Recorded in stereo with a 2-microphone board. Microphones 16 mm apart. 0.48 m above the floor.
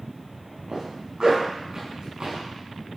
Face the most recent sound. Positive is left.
turn(degrees=-55)  # may be behind; listen again after turning